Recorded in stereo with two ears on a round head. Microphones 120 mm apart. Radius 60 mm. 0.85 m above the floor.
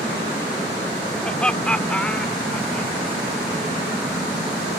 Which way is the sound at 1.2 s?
5° left (ahead or behind).